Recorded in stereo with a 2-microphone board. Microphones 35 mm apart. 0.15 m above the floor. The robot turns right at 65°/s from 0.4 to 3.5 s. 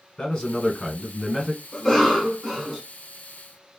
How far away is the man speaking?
About 1.5 m.